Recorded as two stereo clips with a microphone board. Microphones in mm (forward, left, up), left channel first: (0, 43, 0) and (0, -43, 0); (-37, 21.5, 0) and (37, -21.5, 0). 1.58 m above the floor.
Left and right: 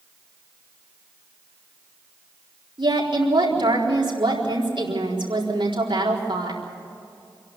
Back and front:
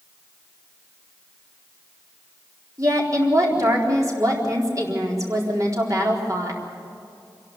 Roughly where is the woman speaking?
Right.